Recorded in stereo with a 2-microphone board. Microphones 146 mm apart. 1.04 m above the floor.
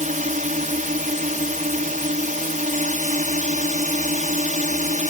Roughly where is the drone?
Right.